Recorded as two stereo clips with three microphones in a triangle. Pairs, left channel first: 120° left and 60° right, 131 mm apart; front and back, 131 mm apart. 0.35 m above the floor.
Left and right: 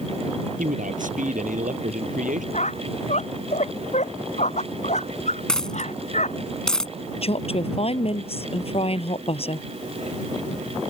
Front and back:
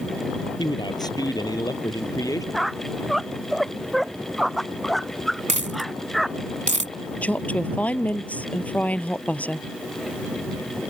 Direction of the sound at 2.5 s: 90° left.